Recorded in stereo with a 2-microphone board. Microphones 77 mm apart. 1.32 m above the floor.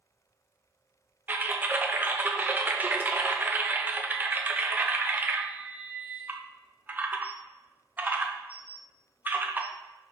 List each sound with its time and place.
1.3 s typing on a keyboard: 25° right (ahead or behind), 0.6 m